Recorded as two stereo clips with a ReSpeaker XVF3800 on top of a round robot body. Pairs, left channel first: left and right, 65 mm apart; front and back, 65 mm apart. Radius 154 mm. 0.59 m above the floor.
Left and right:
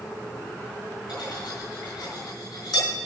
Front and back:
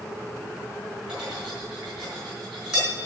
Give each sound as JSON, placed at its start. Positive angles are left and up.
{"t": 1.1, "sound": "cutlery clinking", "azimuth_deg": 105, "distance_m": 4.5}